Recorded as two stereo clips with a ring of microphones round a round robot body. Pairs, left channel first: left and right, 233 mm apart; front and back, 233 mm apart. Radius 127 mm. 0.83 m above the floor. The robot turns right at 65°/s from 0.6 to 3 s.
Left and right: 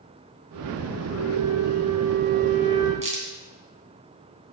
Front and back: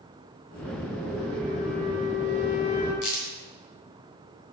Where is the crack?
25° right, 3 m.